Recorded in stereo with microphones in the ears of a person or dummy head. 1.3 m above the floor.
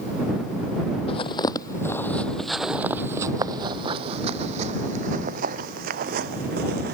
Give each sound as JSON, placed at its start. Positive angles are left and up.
{"t": 1.1, "sound": "footsteps", "side_deg": 35}